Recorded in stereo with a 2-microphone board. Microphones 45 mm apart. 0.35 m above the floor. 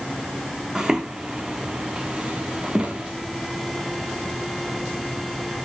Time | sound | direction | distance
0.8 | footsteps | 15° right (ahead or behind) | 0.8 m